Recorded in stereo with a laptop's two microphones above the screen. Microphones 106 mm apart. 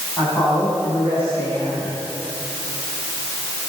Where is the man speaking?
25° left (ahead or behind), 8.5 m.